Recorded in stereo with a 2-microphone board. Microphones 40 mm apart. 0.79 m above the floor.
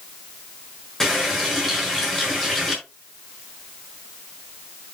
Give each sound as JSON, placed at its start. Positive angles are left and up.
{"t": 1.0, "sound": "a running tap", "side_deg": 10, "distance_m": 6.5}